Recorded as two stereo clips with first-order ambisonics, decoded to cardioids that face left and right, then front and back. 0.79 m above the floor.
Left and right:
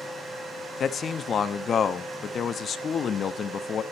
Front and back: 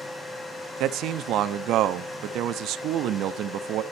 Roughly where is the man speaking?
Behind left.